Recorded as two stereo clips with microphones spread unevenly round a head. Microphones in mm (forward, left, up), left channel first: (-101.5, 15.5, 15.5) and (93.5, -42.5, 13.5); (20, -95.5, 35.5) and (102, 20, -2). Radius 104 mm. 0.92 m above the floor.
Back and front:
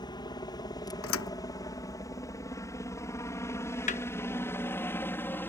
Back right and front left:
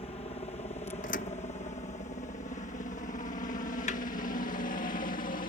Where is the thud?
175° right.